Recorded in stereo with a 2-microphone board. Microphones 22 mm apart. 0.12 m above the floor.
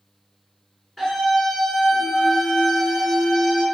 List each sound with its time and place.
1.0 s a scream: 15° left (ahead or behind), 1.2 m